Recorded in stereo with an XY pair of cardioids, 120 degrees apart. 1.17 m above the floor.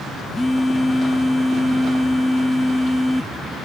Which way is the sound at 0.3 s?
5° left.